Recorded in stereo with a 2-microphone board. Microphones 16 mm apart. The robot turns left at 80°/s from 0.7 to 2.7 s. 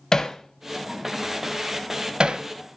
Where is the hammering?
35° left (ahead or behind), 0.7 m; by 2.5 s 75° right (ahead or behind), 0.7 m.